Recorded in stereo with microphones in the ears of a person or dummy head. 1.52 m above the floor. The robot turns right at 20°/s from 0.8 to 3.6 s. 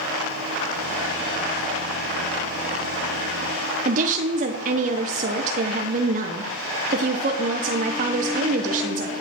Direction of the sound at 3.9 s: 45° right (ahead or behind).